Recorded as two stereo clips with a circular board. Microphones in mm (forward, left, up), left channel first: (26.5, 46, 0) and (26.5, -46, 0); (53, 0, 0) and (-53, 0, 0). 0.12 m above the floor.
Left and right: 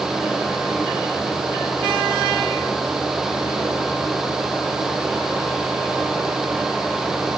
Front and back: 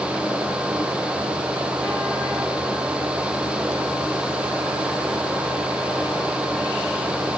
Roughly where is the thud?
I don't hear a thud.